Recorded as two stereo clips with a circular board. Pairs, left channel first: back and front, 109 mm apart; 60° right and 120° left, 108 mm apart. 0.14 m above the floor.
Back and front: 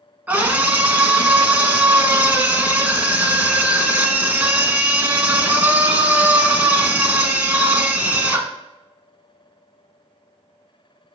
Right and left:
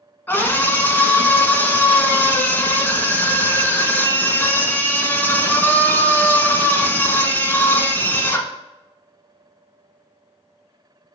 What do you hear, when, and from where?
0.3 s a scream: 40° right, 1.1 m